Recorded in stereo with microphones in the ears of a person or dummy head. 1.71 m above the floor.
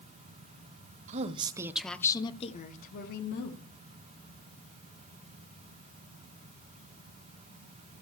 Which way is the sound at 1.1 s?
45° right (ahead or behind).